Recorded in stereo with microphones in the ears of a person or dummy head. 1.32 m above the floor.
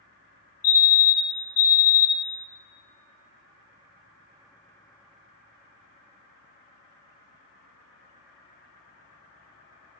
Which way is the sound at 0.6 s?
45° left (ahead or behind).